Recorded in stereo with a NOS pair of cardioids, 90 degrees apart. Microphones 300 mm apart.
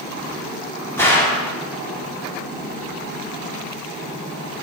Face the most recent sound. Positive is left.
turn(degrees=10)